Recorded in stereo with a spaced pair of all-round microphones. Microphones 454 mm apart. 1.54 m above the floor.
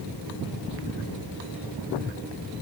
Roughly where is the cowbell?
No cowbell in this recording.